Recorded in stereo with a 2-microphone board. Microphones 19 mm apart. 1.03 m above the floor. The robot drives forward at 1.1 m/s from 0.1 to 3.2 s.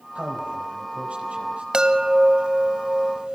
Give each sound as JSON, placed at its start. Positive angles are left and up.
{"t": 0.1, "sound": "a man speaking", "side_deg": -75, "distance_m": 5.0}
{"t": 1.7, "sound": "a chime", "side_deg": -40, "distance_m": 1.5}